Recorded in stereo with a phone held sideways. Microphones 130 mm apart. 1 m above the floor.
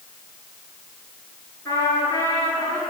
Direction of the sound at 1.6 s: 25° left (ahead or behind).